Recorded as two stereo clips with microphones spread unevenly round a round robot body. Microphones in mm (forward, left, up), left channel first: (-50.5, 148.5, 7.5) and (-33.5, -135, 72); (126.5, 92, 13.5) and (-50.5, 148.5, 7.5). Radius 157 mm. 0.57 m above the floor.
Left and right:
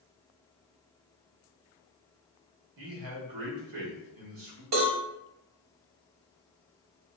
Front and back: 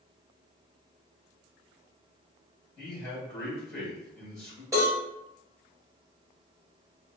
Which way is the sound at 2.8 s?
95° right.